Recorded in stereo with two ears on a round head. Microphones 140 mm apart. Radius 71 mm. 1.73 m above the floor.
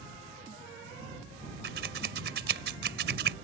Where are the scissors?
70° right (ahead or behind).